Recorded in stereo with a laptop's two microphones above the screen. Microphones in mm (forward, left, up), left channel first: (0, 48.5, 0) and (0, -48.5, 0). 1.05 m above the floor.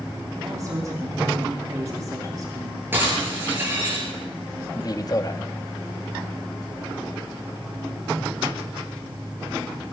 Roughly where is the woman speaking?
Right.